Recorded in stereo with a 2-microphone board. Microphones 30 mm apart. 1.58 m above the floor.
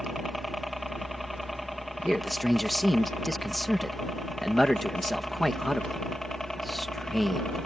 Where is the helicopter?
5° right (ahead or behind); by 7.7 s 15° left (ahead or behind).